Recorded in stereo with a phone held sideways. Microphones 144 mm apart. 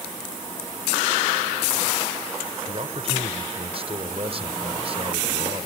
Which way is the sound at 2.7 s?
45° right (ahead or behind).